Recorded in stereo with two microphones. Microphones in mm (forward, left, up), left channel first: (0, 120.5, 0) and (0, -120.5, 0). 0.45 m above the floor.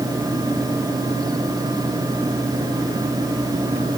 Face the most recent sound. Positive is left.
No sound to turn to.